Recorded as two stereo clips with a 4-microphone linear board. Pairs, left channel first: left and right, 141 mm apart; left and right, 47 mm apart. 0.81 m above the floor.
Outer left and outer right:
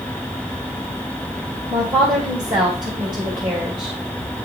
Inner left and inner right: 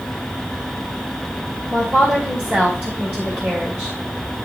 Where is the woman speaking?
35° right (ahead or behind), 2.5 m.